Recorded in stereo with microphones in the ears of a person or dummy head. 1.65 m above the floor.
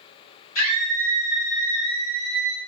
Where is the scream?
80° left, 1.9 m; by 2.6 s 10° right (ahead or behind), 1.4 m.